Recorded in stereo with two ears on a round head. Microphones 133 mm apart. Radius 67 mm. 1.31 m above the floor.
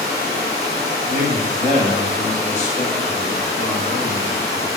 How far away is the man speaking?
About 0.7 m.